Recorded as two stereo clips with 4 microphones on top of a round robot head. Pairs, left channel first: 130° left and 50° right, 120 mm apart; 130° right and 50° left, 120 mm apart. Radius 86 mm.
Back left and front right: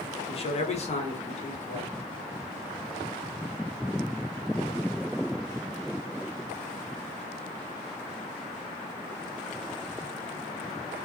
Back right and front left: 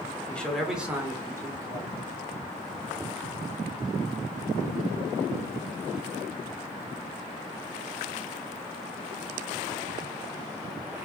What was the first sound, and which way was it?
A man speaking, 155° left.